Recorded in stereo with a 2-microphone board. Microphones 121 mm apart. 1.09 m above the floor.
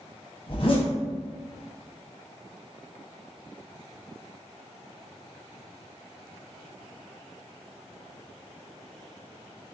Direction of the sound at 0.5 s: 50° left (ahead or behind).